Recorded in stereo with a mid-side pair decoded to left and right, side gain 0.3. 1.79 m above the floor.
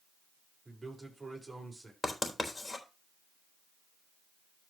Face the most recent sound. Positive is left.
turn(degrees=35)